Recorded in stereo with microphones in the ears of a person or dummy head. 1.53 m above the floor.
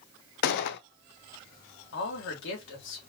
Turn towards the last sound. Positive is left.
turn(degrees=70)  # may be behind; listen again after turning